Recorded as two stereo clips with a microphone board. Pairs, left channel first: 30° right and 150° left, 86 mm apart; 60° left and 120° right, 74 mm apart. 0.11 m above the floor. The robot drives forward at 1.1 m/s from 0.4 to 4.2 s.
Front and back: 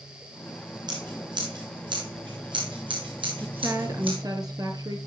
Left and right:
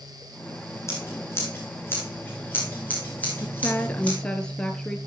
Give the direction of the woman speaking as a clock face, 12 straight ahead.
9 o'clock.